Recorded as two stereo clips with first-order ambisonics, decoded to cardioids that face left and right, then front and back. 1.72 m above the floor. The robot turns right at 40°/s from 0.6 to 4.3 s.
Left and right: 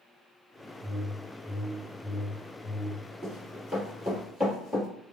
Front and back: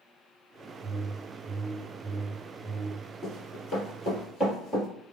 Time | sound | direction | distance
0.8 | a whoosh | 65° right | 1.0 m
3.2 | running footsteps | 25° left | 1.7 m